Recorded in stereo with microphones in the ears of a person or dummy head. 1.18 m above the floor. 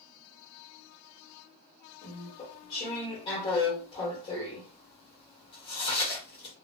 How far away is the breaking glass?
No breaking glass in this recording.